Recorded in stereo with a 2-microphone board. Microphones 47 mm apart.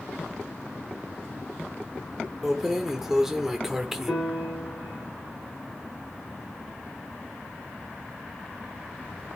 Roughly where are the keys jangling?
Centre.